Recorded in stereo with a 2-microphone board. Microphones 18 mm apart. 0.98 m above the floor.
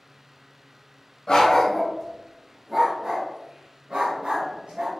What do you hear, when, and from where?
1.3 s a dog barking: 45° left (ahead or behind), 0.9 m; by 4.9 s 70° right (ahead or behind), 1.6 m